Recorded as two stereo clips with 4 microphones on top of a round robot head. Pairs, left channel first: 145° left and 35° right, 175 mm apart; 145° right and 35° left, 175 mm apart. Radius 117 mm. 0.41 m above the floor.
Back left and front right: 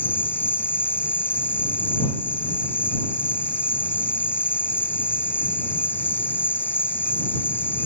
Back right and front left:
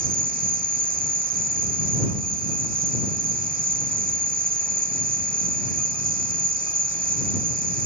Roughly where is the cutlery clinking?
I don't hear cutlery clinking.